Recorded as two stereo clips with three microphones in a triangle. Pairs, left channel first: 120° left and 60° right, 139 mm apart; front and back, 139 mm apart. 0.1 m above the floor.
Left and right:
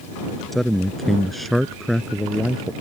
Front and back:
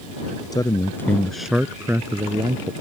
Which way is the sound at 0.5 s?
35° left.